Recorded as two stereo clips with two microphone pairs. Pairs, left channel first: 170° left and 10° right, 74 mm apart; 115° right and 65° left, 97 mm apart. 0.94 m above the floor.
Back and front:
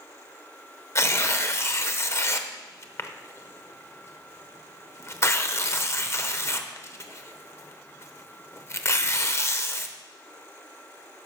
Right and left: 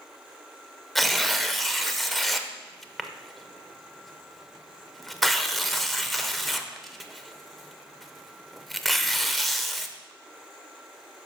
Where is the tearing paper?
155° left, 0.7 m.